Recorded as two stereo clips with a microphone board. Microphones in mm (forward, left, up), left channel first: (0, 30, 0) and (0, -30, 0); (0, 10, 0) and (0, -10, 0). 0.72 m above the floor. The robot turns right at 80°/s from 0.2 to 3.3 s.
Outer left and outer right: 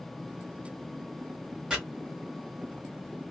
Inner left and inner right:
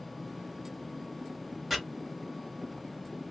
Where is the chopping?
15° right (ahead or behind), 1.3 m; by 1.8 s 20° right (ahead or behind), 1.3 m.